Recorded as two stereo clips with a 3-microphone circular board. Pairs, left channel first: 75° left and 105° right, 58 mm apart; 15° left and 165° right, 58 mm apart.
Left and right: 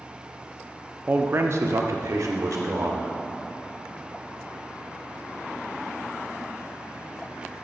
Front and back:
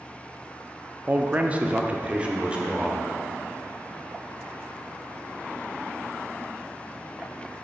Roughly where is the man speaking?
Behind right.